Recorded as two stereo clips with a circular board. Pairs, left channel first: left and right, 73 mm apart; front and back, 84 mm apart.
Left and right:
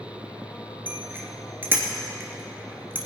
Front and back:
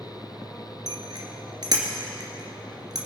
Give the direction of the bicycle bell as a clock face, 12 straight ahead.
5 o'clock.